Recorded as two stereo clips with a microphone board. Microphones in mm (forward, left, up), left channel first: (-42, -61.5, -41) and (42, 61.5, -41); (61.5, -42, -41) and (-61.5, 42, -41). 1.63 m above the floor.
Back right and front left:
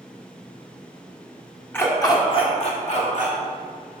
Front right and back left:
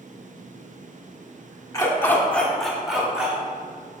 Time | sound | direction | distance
1.7 | a dog barking | 65° right | 1.3 m